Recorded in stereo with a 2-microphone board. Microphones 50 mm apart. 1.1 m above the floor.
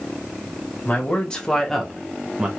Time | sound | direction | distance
0.8 | a man speaking | 30° left (ahead or behind) | 1.3 m